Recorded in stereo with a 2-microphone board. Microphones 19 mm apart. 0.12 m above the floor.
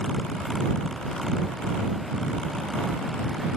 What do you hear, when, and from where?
Only background noise.